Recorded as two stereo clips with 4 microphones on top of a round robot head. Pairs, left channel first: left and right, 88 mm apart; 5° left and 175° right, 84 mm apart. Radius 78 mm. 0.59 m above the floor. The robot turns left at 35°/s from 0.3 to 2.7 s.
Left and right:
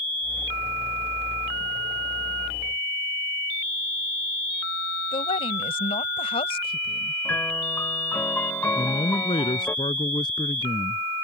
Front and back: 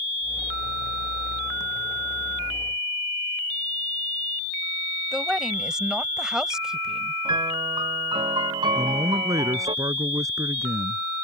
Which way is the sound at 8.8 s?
135° left.